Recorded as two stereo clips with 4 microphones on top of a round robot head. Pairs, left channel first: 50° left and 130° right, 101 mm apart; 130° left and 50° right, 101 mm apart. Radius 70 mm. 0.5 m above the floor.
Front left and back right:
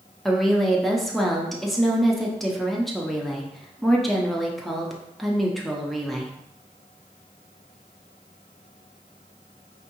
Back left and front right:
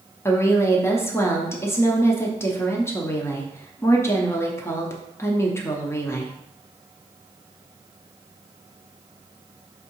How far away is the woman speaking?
About 0.7 m.